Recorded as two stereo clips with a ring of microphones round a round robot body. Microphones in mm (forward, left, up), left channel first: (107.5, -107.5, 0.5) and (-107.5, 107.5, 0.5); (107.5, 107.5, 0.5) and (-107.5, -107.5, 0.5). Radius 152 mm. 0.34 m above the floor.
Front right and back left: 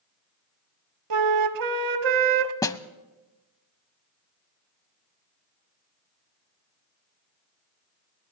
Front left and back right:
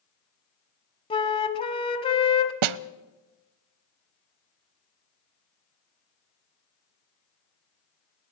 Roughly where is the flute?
Behind left.